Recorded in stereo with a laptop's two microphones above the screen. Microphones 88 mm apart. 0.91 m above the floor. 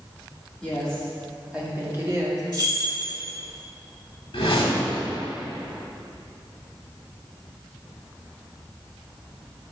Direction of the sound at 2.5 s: 45° right (ahead or behind).